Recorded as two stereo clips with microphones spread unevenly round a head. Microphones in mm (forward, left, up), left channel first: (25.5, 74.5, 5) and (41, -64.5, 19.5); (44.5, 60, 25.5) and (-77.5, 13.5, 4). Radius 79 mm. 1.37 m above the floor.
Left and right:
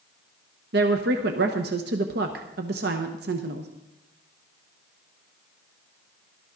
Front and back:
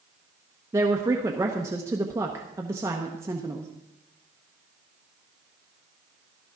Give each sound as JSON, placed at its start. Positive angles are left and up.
{"t": 0.7, "sound": "a woman speaking", "azimuth_deg": -85, "distance_m": 1.0}